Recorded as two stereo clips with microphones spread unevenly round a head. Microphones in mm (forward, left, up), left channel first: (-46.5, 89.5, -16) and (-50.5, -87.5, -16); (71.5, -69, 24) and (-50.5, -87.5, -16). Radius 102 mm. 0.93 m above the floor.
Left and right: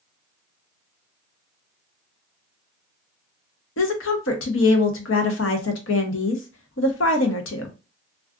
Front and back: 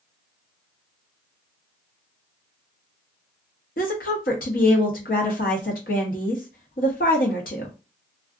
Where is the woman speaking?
55° left, 0.7 m.